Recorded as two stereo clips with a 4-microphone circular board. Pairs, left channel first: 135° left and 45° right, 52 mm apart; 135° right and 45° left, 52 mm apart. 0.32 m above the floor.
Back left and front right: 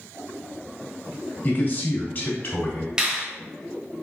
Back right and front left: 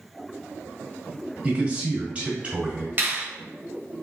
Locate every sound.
1.4 s a man speaking: 105° left, 1.6 m
3.0 s a finger snap: 20° left, 1.1 m